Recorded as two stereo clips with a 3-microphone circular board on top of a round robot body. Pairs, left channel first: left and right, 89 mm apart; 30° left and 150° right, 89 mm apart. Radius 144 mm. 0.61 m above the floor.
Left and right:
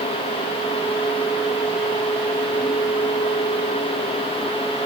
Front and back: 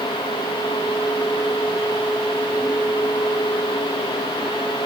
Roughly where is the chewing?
I don't hear chewing.